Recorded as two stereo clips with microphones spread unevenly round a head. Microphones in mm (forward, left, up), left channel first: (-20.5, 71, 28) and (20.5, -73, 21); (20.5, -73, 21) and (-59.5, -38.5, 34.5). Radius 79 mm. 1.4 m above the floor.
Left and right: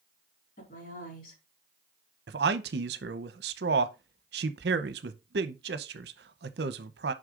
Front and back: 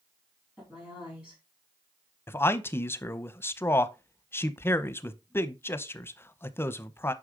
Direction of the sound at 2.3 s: 90° right.